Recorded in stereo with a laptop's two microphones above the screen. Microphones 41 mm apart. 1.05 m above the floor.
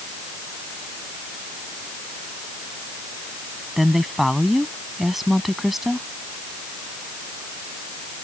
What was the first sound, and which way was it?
A woman speaking, 5° right (ahead or behind).